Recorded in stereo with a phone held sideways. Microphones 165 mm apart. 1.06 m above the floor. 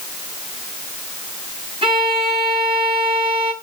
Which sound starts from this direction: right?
A violin, at 1.8 s.